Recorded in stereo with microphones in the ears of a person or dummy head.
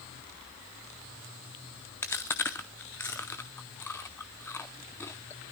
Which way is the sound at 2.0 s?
10° left (ahead or behind).